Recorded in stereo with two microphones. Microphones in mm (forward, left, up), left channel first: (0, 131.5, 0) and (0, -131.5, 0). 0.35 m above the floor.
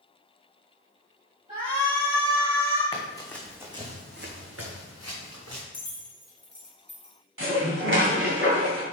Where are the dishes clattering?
55° right (ahead or behind), 1.9 m.